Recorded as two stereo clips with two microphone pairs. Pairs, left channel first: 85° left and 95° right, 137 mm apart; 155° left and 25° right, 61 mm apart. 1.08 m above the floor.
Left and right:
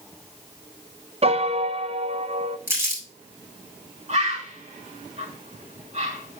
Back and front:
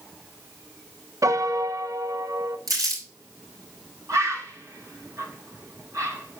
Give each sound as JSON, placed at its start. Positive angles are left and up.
{"t": 1.2, "sound": "a piano", "azimuth_deg": -55, "distance_m": 0.6}
{"t": 2.7, "sound": "crumpling", "azimuth_deg": -25, "distance_m": 3.0}
{"t": 4.1, "sound": "a bird", "azimuth_deg": -55, "distance_m": 2.0}